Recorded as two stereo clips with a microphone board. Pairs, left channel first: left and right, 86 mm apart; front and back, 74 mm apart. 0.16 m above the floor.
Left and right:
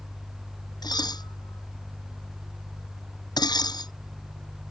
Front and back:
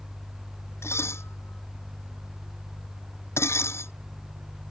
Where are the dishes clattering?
55° left.